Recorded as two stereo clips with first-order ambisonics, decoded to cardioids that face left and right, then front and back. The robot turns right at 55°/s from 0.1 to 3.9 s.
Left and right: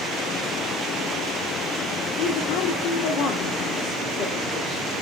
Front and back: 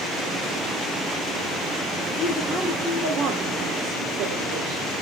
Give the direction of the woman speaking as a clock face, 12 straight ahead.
9 o'clock.